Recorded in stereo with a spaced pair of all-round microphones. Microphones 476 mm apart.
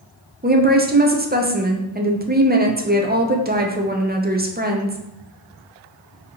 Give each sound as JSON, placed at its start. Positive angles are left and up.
{"t": 0.4, "sound": "a woman speaking", "side_deg": -20, "distance_m": 0.5}